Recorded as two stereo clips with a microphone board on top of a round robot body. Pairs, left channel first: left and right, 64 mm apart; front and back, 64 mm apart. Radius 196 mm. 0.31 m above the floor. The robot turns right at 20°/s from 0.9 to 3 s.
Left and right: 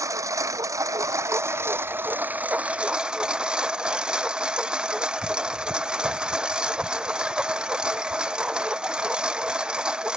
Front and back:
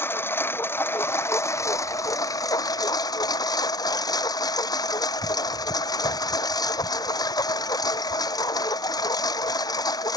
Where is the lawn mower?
55° right; by 10.2 s 10° right.